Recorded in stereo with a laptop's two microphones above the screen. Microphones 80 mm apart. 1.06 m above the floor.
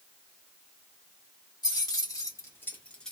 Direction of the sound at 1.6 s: 55° left (ahead or behind).